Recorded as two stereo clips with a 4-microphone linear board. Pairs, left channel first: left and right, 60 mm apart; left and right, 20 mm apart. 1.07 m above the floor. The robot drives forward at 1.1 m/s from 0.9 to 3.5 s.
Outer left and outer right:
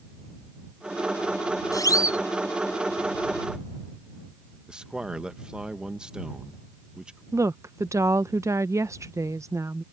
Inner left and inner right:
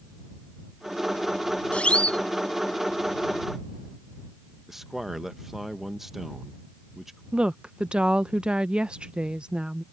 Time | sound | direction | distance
1.7 | a siren | 80° left | ?
4.7 | a man speaking | 15° right (ahead or behind) | ?
7.3 | a woman speaking | 60° right (ahead or behind) | ?